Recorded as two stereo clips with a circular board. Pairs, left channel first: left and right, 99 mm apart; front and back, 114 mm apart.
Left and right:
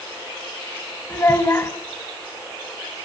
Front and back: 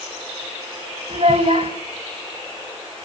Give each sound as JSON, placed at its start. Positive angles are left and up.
{"t": 1.1, "sound": "a child speaking", "azimuth_deg": 150, "distance_m": 3.0}